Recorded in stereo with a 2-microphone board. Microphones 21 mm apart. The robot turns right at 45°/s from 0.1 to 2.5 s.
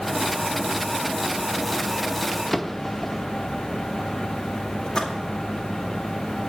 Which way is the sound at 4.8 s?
55° left (ahead or behind).